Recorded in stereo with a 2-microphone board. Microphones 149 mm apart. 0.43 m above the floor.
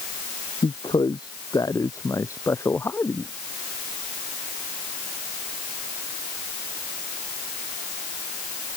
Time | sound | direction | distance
0.6 | a man speaking | 30° left (ahead or behind) | ?